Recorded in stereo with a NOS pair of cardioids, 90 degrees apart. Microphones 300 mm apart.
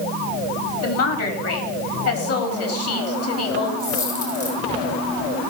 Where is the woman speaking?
50° left, 4 m.